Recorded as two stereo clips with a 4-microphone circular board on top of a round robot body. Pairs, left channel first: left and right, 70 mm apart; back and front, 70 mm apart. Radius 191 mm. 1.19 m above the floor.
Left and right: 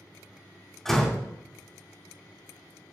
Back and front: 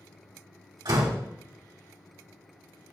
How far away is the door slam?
About 2.5 m.